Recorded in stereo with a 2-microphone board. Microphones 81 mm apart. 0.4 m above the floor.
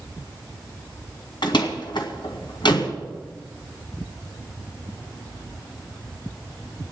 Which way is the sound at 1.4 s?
70° left (ahead or behind).